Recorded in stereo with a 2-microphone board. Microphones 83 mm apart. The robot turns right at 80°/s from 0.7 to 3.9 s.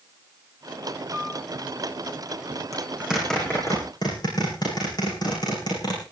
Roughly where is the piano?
Right.